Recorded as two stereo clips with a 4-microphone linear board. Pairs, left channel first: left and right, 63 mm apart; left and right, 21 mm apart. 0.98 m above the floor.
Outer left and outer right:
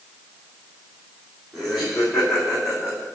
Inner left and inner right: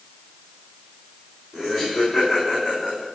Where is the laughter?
Centre (ahead or behind), 4.5 m; by 3.0 s 20° right (ahead or behind), 3 m.